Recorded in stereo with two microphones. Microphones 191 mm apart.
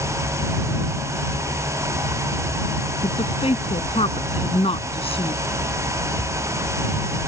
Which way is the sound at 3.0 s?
30° left (ahead or behind).